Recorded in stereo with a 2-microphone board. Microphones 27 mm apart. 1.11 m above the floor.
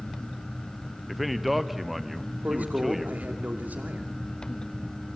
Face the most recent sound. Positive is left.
turn(degrees=-80)